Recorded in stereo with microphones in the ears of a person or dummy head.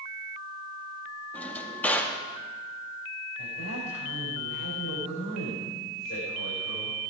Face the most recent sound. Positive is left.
turn(degrees=85)